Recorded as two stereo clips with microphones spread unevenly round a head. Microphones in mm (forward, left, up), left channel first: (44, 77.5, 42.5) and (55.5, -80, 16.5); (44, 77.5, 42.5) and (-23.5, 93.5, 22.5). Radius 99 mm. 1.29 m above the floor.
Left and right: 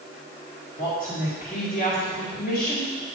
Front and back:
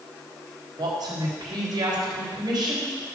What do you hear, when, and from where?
0.8 s a woman speaking: 150° left, 3.5 m